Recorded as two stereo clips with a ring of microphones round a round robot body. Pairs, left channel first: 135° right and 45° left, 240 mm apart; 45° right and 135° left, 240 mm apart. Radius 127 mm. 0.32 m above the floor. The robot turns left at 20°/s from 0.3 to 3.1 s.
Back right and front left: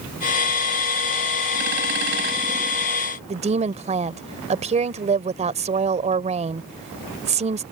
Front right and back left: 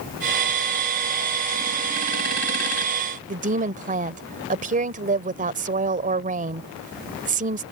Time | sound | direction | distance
3.3 | a woman speaking | 95° left | ?